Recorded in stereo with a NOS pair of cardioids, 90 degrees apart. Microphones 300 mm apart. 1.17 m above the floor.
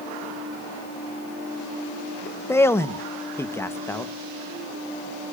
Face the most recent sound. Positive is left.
turn(degrees=10)